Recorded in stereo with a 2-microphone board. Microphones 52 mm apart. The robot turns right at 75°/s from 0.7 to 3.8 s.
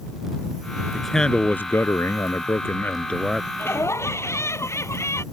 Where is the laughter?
45° left (ahead or behind); by 5.2 s 60° left (ahead or behind).